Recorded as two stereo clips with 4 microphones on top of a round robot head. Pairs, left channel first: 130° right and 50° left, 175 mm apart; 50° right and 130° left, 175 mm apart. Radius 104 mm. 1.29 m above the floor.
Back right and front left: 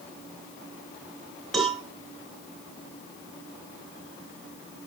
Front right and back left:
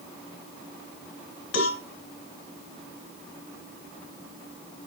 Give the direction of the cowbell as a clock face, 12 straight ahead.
1 o'clock.